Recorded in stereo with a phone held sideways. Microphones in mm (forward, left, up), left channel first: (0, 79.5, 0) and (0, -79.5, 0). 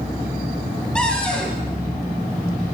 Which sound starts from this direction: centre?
A cupboard door, at 0.9 s.